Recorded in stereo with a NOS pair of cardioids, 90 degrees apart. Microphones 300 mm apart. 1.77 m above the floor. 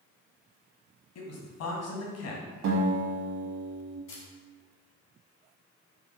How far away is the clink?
No clink in this recording.